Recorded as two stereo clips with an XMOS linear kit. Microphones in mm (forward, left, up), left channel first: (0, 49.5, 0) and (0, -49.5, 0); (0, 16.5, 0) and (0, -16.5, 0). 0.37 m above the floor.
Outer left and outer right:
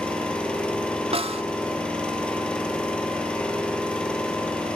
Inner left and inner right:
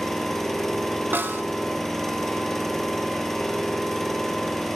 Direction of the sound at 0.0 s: 10° left (ahead or behind).